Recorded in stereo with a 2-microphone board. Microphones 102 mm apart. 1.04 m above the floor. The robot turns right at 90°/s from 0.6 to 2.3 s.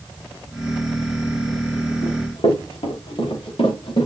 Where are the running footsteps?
75° left (ahead or behind), 4 m; by 4.1 s 55° left (ahead or behind), 4.5 m.